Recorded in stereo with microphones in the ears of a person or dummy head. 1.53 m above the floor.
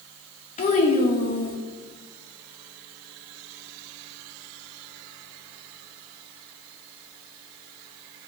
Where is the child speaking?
40° left (ahead or behind), 1.2 m.